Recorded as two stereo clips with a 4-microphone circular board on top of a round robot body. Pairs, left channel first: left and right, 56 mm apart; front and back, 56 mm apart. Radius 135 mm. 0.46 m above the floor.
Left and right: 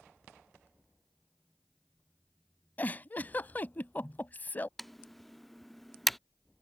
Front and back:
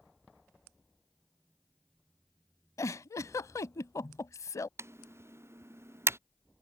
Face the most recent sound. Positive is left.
turn(degrees=175)